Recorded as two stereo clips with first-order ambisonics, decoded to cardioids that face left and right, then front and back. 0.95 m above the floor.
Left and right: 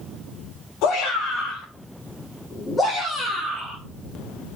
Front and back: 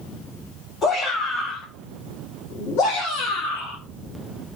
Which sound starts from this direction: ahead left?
A shout, at 0.8 s.